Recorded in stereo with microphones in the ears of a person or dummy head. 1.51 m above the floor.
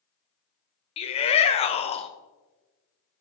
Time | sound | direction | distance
1.0 | a shout | 35° left (ahead or behind) | 1.1 m